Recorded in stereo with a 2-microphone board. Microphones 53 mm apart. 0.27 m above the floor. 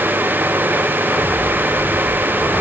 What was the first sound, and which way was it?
Only background noise.